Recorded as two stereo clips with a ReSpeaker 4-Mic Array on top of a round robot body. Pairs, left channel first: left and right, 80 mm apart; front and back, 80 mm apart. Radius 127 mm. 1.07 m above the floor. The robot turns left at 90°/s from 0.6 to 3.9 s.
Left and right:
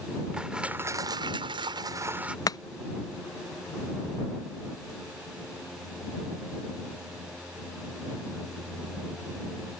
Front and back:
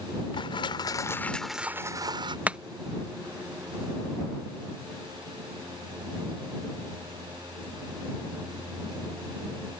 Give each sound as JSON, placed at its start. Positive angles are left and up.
{"t": 0.3, "sound": "crushing", "azimuth_deg": -10}
{"t": 2.5, "sound": "chopping", "azimuth_deg": 115}